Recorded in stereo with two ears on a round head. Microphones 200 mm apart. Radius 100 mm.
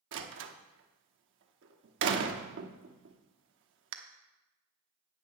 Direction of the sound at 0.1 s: 60° right (ahead or behind).